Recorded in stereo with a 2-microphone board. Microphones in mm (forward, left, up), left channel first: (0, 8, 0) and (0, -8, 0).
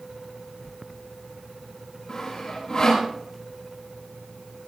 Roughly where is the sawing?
Left.